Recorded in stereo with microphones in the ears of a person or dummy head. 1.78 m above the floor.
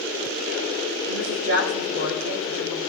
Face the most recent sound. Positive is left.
turn(degrees=-75)  # may be behind; listen again after turning